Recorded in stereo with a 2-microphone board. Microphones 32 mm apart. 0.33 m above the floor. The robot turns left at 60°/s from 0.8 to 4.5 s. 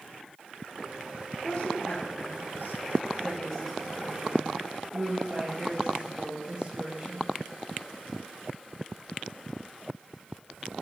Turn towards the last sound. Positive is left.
turn(degrees=-35)  # may be behind; listen again after turning